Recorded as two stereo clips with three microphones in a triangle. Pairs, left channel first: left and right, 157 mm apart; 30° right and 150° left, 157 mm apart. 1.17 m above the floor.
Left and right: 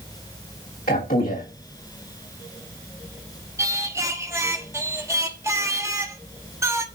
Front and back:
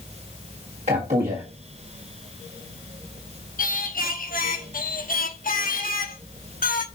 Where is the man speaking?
105° left, 1.6 m.